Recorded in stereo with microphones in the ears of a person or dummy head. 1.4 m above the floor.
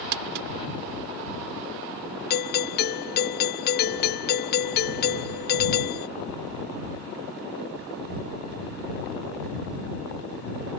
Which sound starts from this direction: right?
Crumpling, at 0.1 s.